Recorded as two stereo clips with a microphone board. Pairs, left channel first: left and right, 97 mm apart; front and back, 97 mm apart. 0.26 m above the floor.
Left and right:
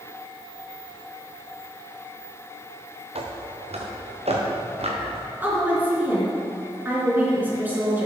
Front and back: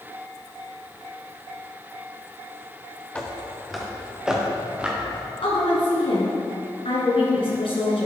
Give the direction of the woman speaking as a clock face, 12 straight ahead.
1 o'clock.